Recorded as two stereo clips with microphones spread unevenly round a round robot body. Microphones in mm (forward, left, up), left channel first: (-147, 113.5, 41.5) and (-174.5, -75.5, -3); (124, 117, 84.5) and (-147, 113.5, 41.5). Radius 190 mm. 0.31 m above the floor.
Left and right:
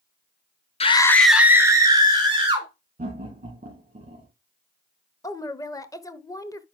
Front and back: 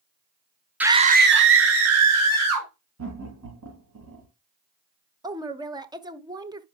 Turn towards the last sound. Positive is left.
turn(degrees=165)